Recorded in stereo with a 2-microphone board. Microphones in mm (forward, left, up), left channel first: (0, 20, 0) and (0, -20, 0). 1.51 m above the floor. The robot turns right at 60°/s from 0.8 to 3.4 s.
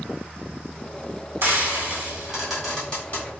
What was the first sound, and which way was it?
Frying, 65° right.